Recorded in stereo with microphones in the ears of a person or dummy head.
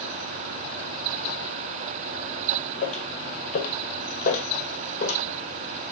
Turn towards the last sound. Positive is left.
turn(degrees=45)  # may be behind; listen again after turning